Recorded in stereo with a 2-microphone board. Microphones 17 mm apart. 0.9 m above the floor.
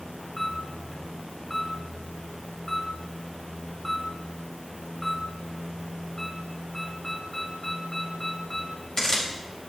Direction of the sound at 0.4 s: 45° left (ahead or behind).